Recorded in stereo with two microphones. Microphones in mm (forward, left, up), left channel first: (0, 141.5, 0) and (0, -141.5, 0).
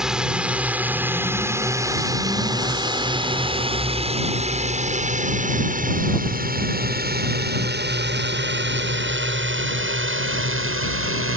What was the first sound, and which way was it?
A drone, centre (ahead or behind).